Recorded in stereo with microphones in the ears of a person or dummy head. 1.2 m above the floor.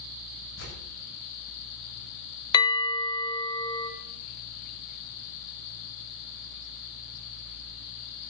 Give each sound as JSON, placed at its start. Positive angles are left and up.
{"t": 0.6, "sound": "tearing paper", "side_deg": 75, "distance_m": 7.0}
{"t": 2.5, "sound": "a bell", "side_deg": 30, "distance_m": 1.0}